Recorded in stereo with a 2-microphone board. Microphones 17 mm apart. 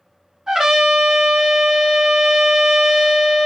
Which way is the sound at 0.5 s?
55° right (ahead or behind).